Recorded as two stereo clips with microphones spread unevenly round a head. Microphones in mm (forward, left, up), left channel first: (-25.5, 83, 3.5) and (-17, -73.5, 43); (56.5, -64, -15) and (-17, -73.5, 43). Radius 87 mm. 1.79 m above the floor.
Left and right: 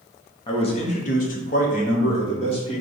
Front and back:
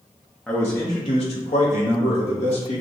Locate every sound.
0.5 s a man speaking: 155° left, 0.6 m; by 2.8 s 30° left, 1.3 m